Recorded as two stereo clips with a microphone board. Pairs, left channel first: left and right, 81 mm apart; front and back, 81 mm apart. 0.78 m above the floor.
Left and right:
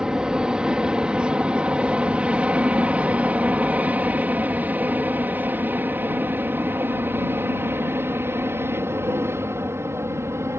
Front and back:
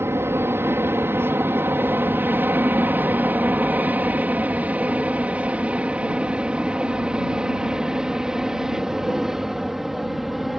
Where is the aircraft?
160° right; by 10.6 s 95° right.